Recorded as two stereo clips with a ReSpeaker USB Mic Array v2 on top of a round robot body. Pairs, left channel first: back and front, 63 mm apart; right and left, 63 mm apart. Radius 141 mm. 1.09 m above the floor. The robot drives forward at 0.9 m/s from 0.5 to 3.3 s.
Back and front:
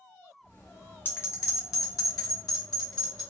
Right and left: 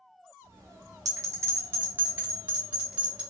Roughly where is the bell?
Behind left.